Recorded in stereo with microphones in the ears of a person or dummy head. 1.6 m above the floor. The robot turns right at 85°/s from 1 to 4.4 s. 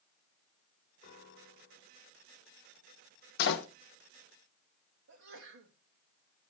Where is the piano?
50° left, 2.5 m; by 2.0 s 130° left, 2.5 m.